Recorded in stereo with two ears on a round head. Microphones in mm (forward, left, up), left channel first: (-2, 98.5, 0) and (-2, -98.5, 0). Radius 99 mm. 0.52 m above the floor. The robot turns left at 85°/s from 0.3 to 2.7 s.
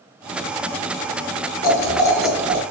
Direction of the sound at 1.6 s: 50° left.